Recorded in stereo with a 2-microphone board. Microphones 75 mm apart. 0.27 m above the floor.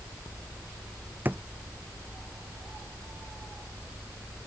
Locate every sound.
1.2 s a drawer: 25° right (ahead or behind)